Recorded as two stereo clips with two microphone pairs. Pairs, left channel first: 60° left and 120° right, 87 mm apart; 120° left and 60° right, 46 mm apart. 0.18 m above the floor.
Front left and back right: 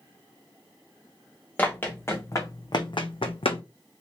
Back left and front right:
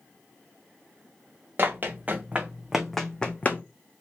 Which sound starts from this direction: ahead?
Running footsteps, at 1.6 s.